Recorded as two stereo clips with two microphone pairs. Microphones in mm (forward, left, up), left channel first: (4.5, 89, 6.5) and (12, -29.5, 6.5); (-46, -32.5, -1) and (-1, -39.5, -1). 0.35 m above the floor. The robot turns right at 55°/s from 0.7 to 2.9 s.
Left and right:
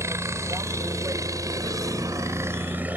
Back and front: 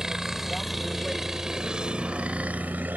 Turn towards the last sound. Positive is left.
turn(degrees=-20)